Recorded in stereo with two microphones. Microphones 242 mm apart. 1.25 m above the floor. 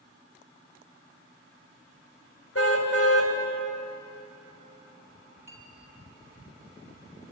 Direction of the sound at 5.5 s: 10° right (ahead or behind).